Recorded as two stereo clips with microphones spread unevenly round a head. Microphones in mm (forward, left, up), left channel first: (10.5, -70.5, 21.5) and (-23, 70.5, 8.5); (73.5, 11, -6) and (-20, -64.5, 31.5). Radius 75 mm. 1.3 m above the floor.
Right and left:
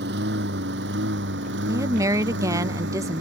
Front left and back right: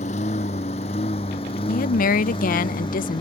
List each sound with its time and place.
0.0 s a lawn mower: 85° left; by 3.2 s 100° left
1.7 s a woman speaking: 30° left